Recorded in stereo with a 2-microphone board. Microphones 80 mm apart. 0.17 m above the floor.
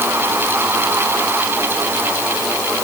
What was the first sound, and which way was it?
Only background noise.